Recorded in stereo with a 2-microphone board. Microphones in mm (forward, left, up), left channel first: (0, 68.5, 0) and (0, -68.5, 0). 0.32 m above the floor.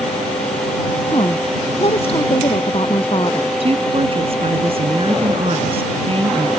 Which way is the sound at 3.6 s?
45° right (ahead or behind).